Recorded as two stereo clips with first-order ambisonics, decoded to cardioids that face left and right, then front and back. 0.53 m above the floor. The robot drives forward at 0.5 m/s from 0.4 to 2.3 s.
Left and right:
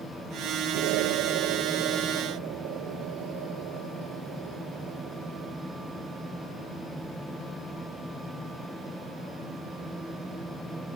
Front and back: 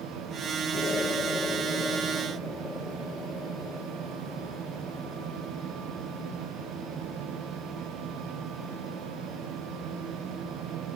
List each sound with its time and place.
0.7 s an explosion: 70° right; by 5.5 s 75° right